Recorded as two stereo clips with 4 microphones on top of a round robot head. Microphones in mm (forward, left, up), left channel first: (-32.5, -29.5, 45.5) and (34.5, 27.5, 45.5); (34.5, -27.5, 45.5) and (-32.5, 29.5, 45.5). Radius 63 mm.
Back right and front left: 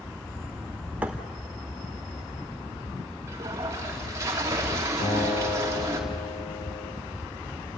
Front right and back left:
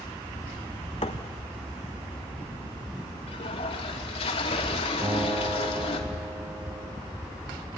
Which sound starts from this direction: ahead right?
A thud, at 1.0 s.